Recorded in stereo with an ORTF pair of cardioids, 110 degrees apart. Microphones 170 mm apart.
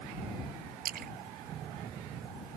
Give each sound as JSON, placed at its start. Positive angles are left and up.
{"t": 0.8, "sound": "a splash", "azimuth_deg": -60}